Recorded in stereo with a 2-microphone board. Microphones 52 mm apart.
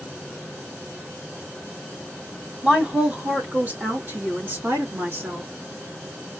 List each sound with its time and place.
2.6 s a woman speaking: 15° right (ahead or behind), 1.5 m; by 5.5 s 55° right (ahead or behind), 2.5 m